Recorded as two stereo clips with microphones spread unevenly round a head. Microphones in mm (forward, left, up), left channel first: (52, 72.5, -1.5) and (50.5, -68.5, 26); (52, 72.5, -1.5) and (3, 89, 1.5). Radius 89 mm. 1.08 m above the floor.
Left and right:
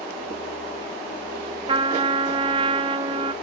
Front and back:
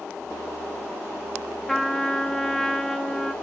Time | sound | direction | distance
1.7 | a trumpet | 105° right | 0.6 m